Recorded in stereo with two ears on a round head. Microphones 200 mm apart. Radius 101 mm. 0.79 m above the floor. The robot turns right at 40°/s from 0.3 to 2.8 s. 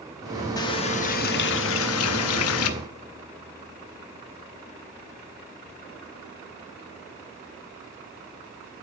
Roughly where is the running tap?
Ahead.